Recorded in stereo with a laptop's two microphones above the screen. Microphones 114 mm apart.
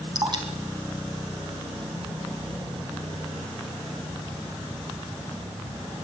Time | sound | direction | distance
0.1 | dripping | 40° right (ahead or behind) | 3.5 m